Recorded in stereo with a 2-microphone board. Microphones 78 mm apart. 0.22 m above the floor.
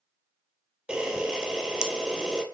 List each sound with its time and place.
0.9 s a camera shutter: 10° right (ahead or behind), 0.8 m